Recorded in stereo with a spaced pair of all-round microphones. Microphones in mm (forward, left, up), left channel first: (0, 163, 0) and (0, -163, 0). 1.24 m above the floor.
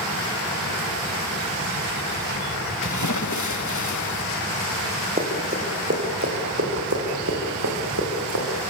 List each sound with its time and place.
2.8 s a splash: 60° left (ahead or behind), 1.5 m
5.2 s running footsteps: 25° right (ahead or behind), 5 m; by 8.4 s 60° right (ahead or behind), 7 m